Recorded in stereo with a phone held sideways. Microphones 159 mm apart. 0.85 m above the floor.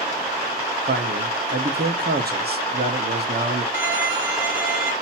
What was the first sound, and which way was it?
A man speaking, 70° right (ahead or behind).